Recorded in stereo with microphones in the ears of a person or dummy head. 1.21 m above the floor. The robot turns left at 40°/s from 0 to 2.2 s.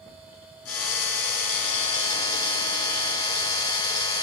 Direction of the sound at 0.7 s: 90° left.